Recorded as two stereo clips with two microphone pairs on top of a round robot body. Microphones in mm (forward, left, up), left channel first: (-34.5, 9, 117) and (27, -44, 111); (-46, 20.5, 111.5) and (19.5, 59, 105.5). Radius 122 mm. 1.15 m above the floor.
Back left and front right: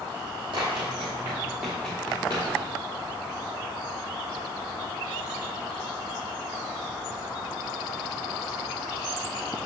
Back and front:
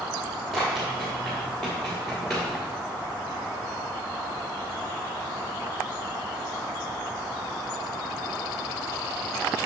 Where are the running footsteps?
65° right, 1.3 m; by 2.5 s 130° left, 1.2 m.